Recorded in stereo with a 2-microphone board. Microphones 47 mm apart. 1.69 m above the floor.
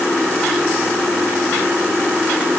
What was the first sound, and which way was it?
Only background noise.